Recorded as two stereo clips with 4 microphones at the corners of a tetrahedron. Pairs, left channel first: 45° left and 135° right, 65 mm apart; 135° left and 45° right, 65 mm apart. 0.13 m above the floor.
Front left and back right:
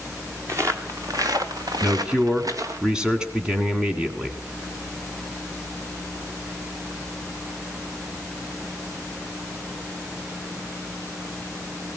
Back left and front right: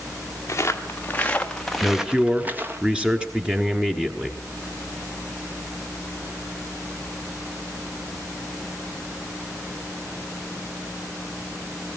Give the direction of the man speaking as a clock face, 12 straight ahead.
3 o'clock.